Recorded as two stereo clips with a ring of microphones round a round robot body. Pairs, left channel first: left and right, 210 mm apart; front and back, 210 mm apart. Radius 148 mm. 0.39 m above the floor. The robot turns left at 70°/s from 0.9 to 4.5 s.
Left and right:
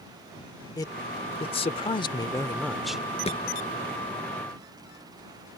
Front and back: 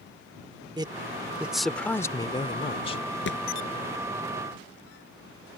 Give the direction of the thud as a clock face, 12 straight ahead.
11 o'clock.